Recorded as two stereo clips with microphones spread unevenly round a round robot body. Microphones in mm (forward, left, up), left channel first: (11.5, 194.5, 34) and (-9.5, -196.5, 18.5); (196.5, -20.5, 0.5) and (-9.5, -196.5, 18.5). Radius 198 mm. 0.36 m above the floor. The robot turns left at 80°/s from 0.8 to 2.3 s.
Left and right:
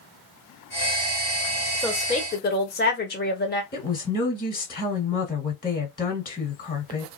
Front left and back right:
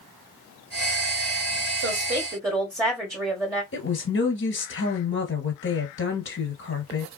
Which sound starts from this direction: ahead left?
A woman speaking, at 3.7 s.